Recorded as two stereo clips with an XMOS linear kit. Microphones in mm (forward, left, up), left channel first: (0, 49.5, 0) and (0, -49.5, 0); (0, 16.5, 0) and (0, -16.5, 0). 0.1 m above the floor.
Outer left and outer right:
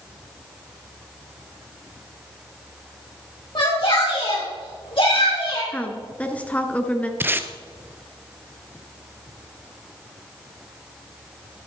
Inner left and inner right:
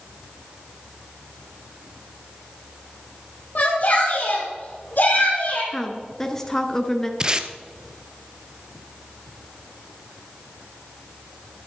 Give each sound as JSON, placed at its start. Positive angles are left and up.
{"t": 3.5, "sound": "a shout", "side_deg": 50, "distance_m": 3.5}
{"t": 5.7, "sound": "a woman speaking", "side_deg": 15, "distance_m": 1.3}
{"t": 7.2, "sound": "tape being pulled", "side_deg": -20, "distance_m": 0.8}